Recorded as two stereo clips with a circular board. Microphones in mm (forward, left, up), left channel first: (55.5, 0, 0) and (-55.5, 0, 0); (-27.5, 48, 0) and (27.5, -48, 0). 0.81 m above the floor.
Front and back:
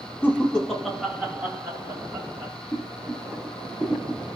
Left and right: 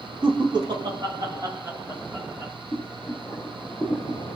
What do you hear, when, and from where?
0.2 s laughter: 65° right, 0.9 m; by 2.5 s 135° right, 1.3 m
2.7 s boiling: 145° left, 0.8 m